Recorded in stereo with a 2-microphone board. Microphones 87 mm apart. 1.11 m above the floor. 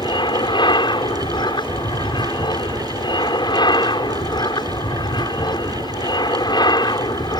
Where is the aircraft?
55° left (ahead or behind); by 7.4 s 50° left (ahead or behind).